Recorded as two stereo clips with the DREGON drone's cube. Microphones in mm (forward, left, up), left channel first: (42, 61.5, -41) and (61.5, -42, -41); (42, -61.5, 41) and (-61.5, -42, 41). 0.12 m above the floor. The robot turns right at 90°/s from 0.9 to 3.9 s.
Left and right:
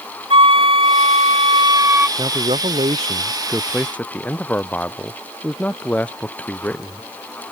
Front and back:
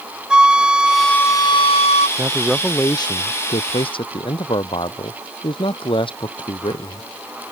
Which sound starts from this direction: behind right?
A man speaking, at 2.2 s.